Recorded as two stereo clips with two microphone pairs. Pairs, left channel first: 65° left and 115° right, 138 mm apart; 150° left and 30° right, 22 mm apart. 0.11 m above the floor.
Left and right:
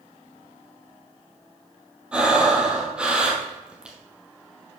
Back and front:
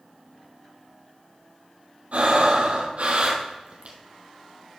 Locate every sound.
2.1 s breathing: 35° right, 1.8 m